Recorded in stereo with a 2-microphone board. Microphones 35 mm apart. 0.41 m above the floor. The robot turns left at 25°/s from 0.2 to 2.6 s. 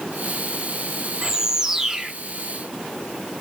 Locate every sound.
1.2 s a bird: 15° right (ahead or behind), 0.6 m; by 2.1 s 10° right (ahead or behind), 0.6 m